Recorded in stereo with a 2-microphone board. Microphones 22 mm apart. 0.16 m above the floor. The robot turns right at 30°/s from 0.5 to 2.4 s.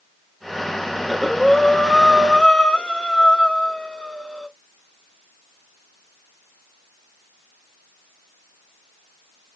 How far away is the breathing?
About 0.7 m.